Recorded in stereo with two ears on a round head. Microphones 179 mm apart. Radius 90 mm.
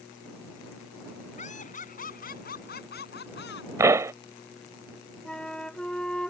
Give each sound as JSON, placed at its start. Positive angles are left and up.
{"t": 1.4, "sound": "laughter", "side_deg": 40}
{"t": 3.8, "sound": "a pop", "side_deg": -15}
{"t": 5.2, "sound": "a flute", "side_deg": 5}